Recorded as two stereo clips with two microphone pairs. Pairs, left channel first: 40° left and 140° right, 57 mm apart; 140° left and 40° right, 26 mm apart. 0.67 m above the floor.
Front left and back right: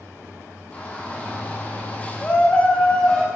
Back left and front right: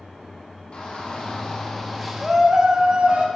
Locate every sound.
0.7 s a shout: 105° left, 2.0 m; by 3.2 s 25° right, 1.6 m